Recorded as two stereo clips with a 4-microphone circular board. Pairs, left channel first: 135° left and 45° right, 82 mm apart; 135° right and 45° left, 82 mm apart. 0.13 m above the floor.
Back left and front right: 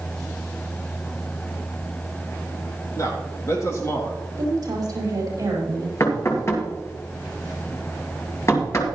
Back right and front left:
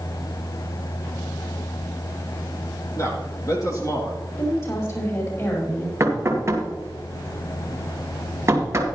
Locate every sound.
3.0 s a man speaking: straight behind, 3.5 m; by 4.2 s 175° right, 3 m
4.4 s a woman speaking: 90° right, 5.5 m
6.0 s knocking: 90° left, 2.0 m